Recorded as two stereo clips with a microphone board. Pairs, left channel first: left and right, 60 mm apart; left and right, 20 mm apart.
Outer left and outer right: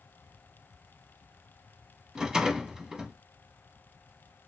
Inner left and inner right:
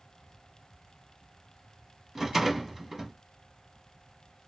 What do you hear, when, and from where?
2.1 s a rattle: 10° right (ahead or behind), 0.9 m